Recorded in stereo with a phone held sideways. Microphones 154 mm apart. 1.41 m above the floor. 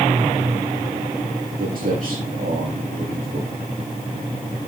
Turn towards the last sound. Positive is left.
turn(degrees=-75)  # may be behind; listen again after turning